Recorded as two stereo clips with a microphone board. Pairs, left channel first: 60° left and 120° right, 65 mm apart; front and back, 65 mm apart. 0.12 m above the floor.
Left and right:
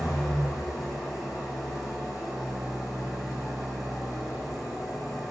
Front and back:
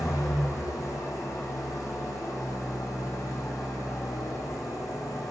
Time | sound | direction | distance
0.0 | an engine running | 35° right | 2 m